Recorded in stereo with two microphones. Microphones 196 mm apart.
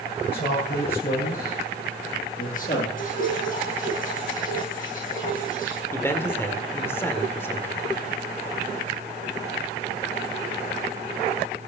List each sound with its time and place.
0.3 s a man speaking: 55° left (ahead or behind), 9 m; by 2.9 s 40° left (ahead or behind), 9.5 m
3.0 s dripping: 45° left (ahead or behind), 9 m
5.9 s a man speaking: 10° left (ahead or behind), 1.8 m